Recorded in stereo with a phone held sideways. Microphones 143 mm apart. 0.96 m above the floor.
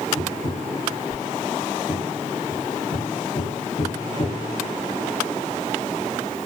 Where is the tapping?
75° left (ahead or behind), 0.9 m.